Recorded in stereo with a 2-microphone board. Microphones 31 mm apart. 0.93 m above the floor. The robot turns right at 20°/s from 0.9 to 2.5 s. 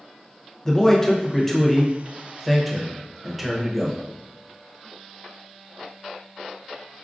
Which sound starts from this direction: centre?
A man speaking, at 0.7 s.